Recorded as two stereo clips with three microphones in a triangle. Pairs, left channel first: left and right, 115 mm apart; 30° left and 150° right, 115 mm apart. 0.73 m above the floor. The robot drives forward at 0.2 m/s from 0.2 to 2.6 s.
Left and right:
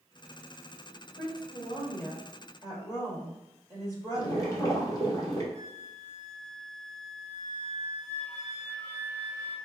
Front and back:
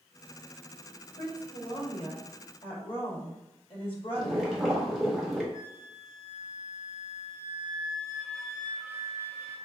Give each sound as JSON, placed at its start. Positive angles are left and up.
{"t": 1.2, "sound": "a woman speaking", "azimuth_deg": 35, "distance_m": 1.7}
{"t": 4.2, "sound": "boiling", "azimuth_deg": 120, "distance_m": 1.2}
{"t": 5.5, "sound": "a flute", "azimuth_deg": 55, "distance_m": 2.0}